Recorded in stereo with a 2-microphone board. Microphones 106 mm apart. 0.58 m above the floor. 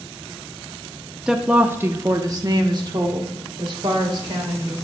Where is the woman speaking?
5° right (ahead or behind), 0.7 m; by 4.8 s 50° right (ahead or behind), 1.8 m.